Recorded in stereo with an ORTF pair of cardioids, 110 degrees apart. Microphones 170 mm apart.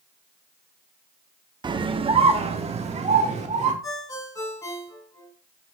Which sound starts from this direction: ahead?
A ringtone, at 3.8 s.